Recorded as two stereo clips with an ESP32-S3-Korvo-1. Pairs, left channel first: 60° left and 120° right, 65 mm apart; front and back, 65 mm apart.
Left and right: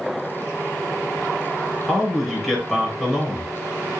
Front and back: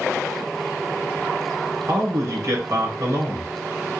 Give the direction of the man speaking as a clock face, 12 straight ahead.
7 o'clock.